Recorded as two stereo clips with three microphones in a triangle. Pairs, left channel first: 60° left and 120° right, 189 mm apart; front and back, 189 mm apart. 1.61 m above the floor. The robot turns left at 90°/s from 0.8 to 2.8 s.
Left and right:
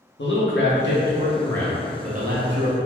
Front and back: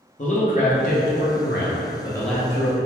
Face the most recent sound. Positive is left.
turn(degrees=-130)